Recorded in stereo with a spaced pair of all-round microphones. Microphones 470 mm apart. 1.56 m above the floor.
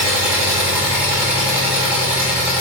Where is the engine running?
5° right (ahead or behind), 1.7 m.